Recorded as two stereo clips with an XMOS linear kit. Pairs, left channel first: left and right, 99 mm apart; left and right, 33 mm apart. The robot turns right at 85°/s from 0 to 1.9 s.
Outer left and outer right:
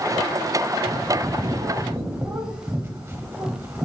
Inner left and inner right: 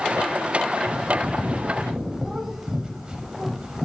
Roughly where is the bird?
Behind right.